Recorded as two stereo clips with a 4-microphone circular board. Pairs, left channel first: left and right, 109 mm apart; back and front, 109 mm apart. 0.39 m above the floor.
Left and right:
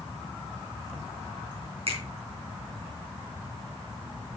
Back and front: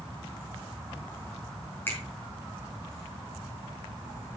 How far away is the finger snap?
About 4 m.